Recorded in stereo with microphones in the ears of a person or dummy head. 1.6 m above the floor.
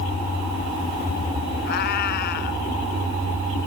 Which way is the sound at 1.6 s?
55° left (ahead or behind).